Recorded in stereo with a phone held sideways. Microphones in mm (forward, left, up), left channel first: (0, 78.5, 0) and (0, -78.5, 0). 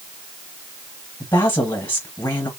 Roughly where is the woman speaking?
Left.